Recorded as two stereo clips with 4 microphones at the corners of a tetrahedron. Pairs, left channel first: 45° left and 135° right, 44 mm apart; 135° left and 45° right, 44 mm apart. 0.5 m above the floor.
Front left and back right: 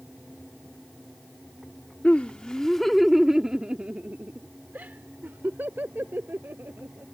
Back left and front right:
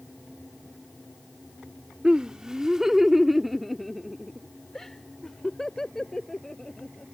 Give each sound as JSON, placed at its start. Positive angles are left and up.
{"t": 2.0, "sound": "laughter", "azimuth_deg": 10}